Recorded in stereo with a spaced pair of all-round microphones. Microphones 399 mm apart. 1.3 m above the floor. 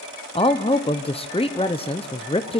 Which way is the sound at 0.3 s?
15° left (ahead or behind).